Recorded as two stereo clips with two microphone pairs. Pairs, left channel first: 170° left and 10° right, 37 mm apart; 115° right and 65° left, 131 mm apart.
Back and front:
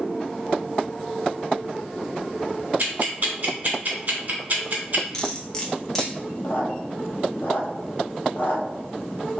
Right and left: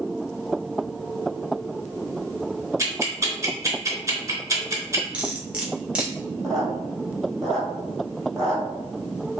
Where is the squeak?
160° left, 0.7 m.